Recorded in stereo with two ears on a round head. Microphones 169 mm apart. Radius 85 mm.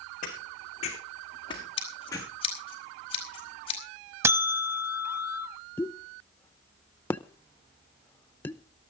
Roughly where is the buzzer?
Centre.